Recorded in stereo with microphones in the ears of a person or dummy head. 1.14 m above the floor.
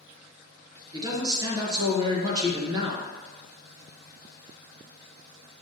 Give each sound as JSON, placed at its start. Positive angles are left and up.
{"t": 0.9, "sound": "a man speaking", "side_deg": -25, "distance_m": 1.1}